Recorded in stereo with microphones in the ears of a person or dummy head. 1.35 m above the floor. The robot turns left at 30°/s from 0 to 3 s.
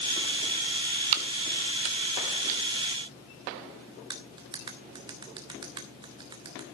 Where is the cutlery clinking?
15° right (ahead or behind), 0.8 m.